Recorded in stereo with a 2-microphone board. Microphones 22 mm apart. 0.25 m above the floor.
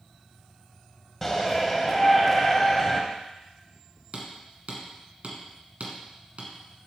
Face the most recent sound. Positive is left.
turn(degrees=-65)  # may be behind; listen again after turning